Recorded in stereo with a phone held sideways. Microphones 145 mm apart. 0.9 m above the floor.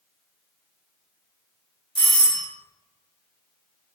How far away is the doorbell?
About 1.2 m.